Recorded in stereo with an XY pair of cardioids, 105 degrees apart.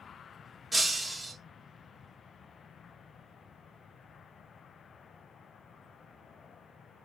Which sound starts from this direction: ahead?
Breaking glass, at 0.7 s.